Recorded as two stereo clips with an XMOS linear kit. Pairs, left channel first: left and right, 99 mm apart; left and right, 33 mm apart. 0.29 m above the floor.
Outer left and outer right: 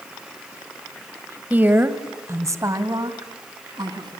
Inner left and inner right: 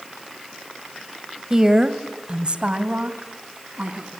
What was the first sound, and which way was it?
A woman speaking, 15° right (ahead or behind).